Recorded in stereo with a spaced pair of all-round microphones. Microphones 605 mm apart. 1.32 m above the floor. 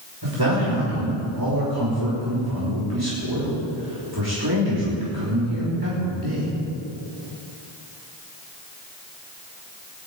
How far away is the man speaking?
About 5 m.